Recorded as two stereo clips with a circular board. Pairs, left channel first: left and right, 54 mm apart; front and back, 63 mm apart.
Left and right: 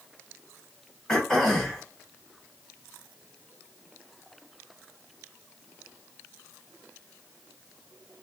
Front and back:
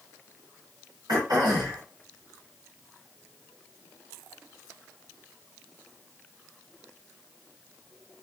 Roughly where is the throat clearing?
Behind.